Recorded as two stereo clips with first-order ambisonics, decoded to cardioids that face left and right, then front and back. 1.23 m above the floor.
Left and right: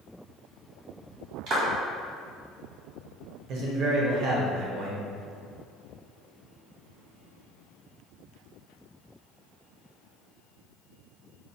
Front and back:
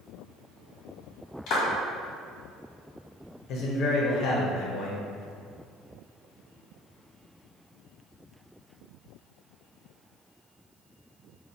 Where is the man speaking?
45° right, 0.7 m.